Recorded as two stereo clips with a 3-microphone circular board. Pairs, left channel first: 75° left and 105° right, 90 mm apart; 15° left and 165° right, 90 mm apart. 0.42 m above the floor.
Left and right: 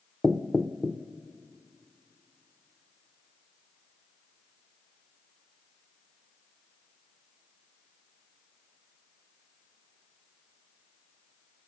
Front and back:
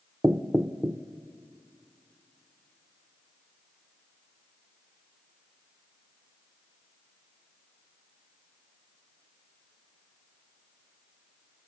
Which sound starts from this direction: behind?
Knocking, at 0.2 s.